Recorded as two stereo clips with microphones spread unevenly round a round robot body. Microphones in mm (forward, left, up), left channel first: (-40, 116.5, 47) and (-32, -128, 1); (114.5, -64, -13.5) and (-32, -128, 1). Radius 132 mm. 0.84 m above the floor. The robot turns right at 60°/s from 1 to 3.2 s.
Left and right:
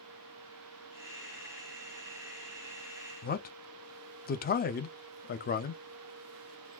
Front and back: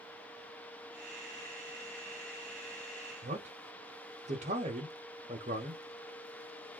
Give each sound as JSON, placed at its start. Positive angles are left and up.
{"t": 3.2, "sound": "a man speaking", "azimuth_deg": 150, "distance_m": 0.5}